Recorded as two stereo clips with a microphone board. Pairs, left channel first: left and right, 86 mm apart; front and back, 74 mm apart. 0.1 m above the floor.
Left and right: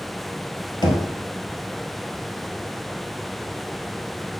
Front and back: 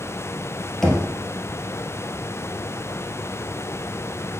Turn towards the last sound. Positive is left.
turn(degrees=85)